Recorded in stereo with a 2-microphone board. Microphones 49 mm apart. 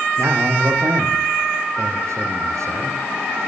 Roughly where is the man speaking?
Right.